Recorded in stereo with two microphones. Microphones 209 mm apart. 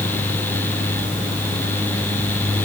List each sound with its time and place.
Only background noise.